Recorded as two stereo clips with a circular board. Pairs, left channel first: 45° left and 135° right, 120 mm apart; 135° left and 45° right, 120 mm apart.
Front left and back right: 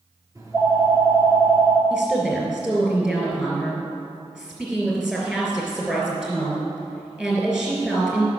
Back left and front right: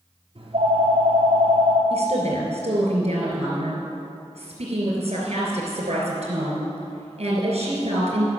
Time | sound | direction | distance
0.3 | a phone ringing | 75° right | 1.6 m
1.9 | a woman speaking | 55° right | 3 m